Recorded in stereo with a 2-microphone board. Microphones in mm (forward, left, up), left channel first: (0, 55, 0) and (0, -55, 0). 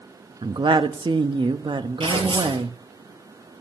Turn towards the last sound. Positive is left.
turn(degrees=-55)  # may be behind; listen again after turning